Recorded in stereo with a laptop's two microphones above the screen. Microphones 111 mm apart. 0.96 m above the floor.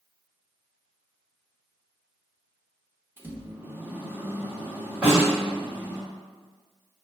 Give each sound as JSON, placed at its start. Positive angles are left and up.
{"t": 3.2, "sound": "a microwave", "side_deg": -15, "distance_m": 0.7}
{"t": 5.0, "sound": "a snare drum", "side_deg": -15, "distance_m": 1.9}